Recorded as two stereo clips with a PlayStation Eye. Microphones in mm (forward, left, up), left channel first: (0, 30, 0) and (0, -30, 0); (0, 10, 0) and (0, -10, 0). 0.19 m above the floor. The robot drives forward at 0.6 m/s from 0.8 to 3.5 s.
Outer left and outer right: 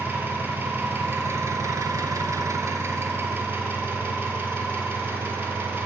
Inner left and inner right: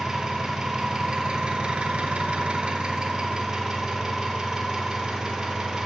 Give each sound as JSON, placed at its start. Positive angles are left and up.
{"t": 0.0, "sound": "an engine running", "side_deg": -35, "distance_m": 1.0}